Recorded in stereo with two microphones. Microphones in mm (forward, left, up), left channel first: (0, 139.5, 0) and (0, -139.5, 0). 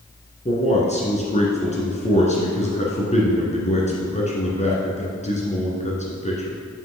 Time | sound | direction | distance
0.5 | a man speaking | 25° left (ahead or behind) | 1.8 m